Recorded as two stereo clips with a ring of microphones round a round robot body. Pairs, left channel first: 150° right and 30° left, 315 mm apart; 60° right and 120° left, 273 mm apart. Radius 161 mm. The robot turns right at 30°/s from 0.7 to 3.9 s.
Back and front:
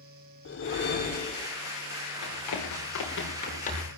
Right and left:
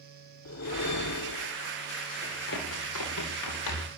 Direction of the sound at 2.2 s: 125° right.